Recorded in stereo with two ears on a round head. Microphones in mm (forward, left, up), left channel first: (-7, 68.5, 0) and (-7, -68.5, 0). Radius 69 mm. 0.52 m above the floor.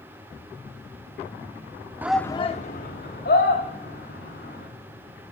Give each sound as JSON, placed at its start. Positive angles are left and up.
{"t": 2.0, "sound": "a shout", "side_deg": -15, "distance_m": 0.7}